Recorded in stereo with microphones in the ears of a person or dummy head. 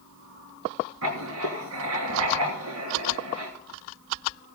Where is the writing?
80° right, 2.5 m.